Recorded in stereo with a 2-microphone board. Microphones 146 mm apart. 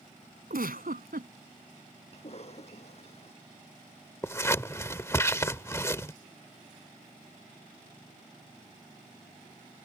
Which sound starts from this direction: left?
A cough, at 2.1 s.